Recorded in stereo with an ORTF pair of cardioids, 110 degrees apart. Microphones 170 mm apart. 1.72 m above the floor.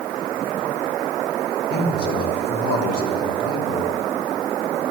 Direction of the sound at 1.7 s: 65° left.